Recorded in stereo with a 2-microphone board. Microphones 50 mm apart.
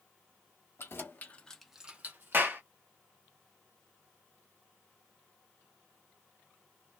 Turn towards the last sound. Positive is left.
turn(degrees=-40)  # may be behind; listen again after turning